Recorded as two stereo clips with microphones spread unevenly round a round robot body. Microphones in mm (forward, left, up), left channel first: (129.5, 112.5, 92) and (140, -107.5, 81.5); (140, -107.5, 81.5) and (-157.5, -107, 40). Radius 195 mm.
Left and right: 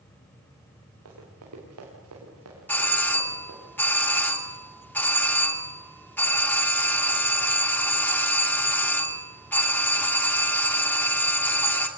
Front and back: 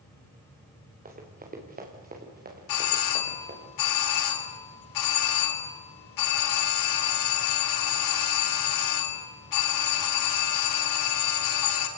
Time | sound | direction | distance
1.1 | running footsteps | 115° right | 6 m
2.7 | a doorbell | 10° left | 3 m